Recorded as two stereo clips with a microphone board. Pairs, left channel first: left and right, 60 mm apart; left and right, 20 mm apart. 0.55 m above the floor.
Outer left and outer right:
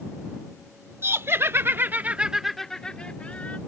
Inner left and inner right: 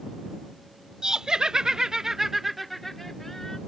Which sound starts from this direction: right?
Laughter, at 1.0 s.